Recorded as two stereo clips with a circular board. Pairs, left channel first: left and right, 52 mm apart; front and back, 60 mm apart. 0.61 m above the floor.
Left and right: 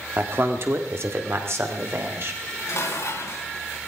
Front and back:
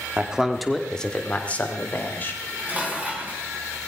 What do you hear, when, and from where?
0.2 s a man speaking: 115° right, 1.4 m; by 2.3 s 55° right, 3 m
2.4 s dishes clattering: 110° left, 4 m